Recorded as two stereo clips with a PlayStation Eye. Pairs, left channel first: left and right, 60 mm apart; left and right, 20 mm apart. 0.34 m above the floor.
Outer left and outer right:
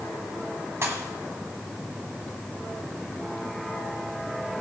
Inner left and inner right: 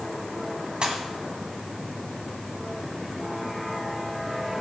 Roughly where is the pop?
Right.